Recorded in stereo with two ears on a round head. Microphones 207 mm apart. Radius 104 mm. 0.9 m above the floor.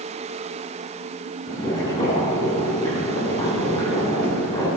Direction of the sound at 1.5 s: 20° left (ahead or behind).